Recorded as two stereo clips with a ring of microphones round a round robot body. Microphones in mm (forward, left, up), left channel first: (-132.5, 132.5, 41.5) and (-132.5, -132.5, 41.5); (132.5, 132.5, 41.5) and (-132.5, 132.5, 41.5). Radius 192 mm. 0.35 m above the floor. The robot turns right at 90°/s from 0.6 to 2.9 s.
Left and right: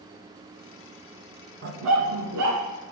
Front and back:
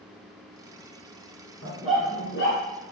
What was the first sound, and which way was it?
A dog barking, 130° right.